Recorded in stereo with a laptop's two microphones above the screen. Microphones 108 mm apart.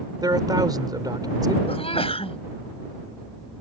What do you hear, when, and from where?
0.2 s a man speaking: 40° right (ahead or behind)
1.7 s a sneeze: 65° left (ahead or behind)